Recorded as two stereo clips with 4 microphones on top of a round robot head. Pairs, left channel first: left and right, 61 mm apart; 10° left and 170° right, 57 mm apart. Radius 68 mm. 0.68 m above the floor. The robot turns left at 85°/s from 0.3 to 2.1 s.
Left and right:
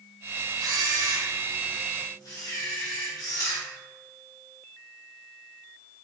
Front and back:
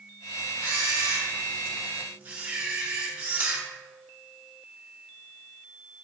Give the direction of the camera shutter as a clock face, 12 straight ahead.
3 o'clock.